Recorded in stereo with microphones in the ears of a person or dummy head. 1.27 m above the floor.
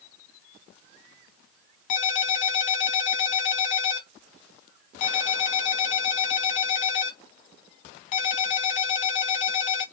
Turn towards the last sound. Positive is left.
turn(degrees=45)  # may be behind; listen again after turning